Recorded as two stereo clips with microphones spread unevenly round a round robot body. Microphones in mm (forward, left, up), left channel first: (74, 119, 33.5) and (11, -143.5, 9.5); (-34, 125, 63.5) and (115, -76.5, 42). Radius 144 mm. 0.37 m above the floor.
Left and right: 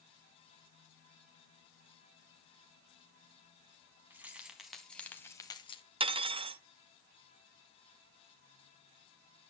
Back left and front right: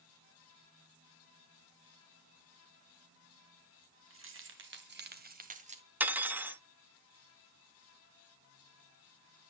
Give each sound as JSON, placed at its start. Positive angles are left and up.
{"t": 4.1, "sound": "keys jangling", "azimuth_deg": -20, "distance_m": 3.0}
{"t": 6.0, "sound": "cutlery clinking", "azimuth_deg": -115, "distance_m": 0.6}